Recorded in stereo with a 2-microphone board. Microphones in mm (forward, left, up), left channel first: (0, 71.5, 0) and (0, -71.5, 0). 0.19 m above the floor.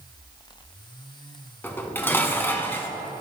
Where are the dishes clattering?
15° left (ahead or behind), 1.1 m.